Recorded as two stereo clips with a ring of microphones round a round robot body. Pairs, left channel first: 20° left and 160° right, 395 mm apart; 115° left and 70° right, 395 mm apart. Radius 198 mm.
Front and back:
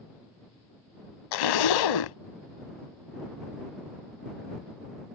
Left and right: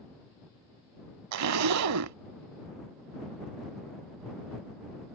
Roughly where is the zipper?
Ahead.